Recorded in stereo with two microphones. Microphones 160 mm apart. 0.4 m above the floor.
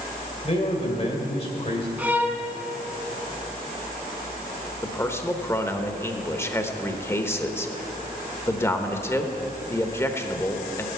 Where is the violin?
10° right (ahead or behind), 1.1 m.